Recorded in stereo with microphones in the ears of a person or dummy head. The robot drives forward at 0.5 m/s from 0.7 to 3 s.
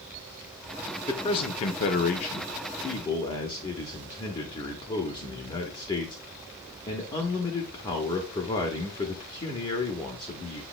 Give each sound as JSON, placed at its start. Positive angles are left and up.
{"t": 1.1, "sound": "a man speaking", "side_deg": 25, "distance_m": 0.6}